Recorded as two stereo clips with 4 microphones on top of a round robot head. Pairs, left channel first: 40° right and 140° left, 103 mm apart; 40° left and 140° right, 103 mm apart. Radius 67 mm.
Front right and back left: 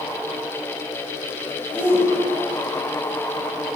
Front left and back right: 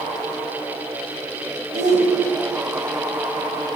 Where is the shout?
145° right, 10 m.